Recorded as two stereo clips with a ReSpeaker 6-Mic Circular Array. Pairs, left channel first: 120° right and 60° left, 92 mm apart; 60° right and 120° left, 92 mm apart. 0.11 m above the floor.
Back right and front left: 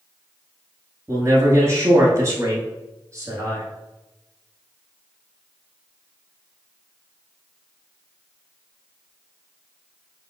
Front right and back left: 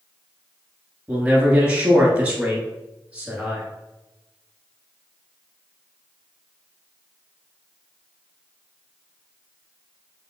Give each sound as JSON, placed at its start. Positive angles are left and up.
{"t": 1.1, "sound": "a man speaking", "azimuth_deg": 55, "distance_m": 1.2}